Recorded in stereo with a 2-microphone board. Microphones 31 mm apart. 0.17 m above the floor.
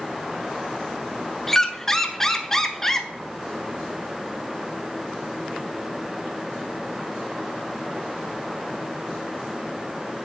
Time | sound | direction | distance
1.5 | a squeak | 15° left (ahead or behind) | 0.5 m